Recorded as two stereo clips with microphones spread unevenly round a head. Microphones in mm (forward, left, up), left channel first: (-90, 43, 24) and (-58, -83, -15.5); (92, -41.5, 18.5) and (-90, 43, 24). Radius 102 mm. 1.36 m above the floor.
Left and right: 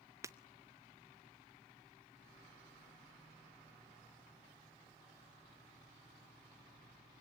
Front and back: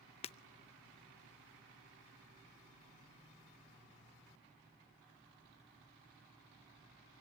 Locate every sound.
0.2 s breaking glass: 10° left, 0.5 m